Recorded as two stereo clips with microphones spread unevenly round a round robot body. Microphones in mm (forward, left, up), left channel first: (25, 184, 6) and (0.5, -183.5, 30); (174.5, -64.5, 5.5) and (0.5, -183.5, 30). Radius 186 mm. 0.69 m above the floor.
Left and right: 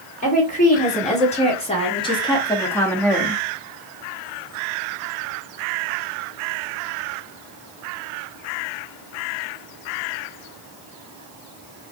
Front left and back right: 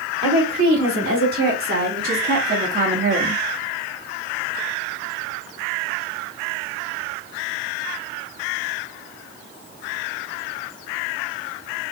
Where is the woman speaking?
155° left, 2.5 m; by 3.4 s 175° left, 1.1 m.